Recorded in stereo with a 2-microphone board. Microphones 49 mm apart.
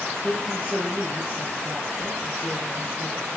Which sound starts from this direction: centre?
A woman speaking, at 0.2 s.